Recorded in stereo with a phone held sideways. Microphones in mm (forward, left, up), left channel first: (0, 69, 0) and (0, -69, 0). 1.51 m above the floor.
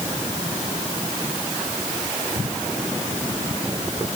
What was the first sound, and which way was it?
Only background noise.